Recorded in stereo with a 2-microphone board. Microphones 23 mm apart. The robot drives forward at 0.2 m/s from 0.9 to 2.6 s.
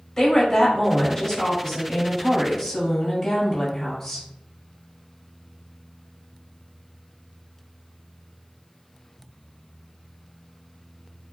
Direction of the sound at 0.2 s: 10° left (ahead or behind).